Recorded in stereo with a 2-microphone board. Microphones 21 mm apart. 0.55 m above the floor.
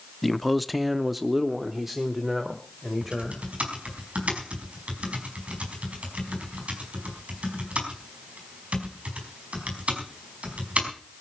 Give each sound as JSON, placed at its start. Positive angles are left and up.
{"t": 0.2, "sound": "a man speaking", "side_deg": 0, "distance_m": 0.7}
{"t": 3.0, "sound": "typing on a keyboard", "side_deg": -80, "distance_m": 4.5}